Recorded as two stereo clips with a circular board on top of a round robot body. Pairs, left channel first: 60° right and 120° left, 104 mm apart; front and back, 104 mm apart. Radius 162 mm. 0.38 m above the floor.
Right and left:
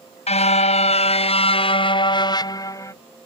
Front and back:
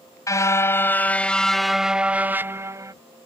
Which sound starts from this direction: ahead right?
A car horn, at 0.3 s.